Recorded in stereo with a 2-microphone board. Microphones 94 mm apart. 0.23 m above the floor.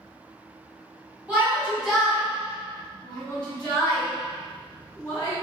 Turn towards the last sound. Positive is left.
turn(degrees=25)  # may be behind; listen again after turning